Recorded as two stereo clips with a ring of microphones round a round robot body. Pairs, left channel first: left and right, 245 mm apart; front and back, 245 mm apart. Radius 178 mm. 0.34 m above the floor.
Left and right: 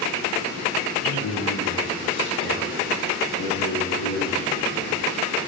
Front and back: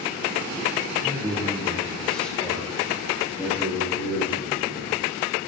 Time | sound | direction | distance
1.0 | a man speaking | 100° left | 5.5 m